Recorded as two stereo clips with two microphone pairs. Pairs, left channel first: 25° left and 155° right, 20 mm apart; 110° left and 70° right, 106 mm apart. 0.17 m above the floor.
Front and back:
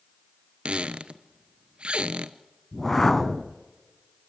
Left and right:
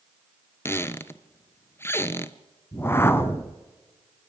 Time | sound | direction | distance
0.7 | a squeak | straight behind | 0.8 m
2.7 | a whoosh | 65° left | 1.0 m